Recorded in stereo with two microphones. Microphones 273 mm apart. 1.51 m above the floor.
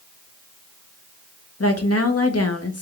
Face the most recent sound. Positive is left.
turn(degrees=60)  # may be behind; listen again after turning